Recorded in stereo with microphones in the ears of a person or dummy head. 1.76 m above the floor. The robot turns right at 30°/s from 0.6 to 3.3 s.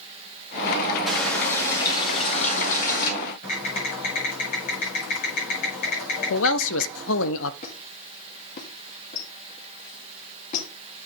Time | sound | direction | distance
1.1 | a running tap | 5° left | 2 m
3.4 | typing on a keyboard | 45° left (ahead or behind) | 5 m
6.3 | a man speaking | 80° left | 0.6 m
7.6 | a squeak | 50° left (ahead or behind) | 2 m